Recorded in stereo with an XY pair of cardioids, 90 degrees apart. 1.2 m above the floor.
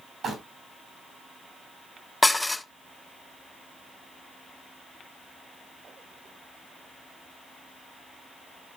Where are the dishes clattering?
15° left, 0.7 m.